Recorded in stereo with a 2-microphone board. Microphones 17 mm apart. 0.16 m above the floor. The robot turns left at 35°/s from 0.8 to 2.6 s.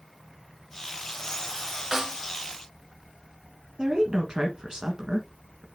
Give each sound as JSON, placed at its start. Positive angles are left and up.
{"t": 1.9, "sound": "a snare drum", "side_deg": -20, "distance_m": 1.1}
{"t": 3.8, "sound": "a woman speaking", "side_deg": -40, "distance_m": 1.4}